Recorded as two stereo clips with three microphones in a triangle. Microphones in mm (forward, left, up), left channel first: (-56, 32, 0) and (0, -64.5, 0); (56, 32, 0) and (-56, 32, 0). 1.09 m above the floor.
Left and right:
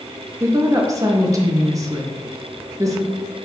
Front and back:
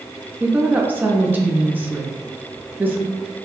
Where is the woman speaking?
115° right, 0.7 m.